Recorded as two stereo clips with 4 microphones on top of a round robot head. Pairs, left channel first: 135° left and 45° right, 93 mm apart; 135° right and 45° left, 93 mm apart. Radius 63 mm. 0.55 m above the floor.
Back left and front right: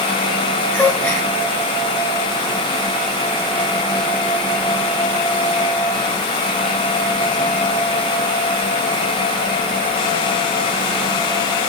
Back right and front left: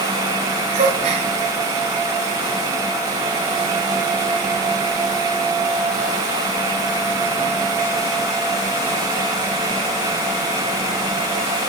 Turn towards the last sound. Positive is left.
turn(degrees=60)